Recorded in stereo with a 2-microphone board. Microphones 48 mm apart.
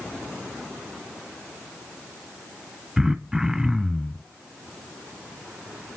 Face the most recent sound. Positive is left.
turn(degrees=-5)  # may be behind; listen again after turning